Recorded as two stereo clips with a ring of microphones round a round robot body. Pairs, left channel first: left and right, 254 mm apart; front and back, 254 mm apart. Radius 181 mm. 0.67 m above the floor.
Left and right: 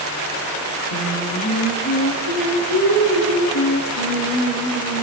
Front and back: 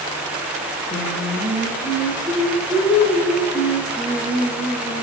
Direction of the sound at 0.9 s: 85° left.